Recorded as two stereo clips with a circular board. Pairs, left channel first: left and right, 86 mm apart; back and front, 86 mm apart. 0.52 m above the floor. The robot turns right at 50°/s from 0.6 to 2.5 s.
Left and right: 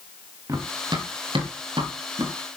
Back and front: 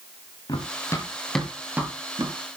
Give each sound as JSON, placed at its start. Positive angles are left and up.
{"t": 0.5, "sound": "running footsteps", "azimuth_deg": -140, "distance_m": 4.5}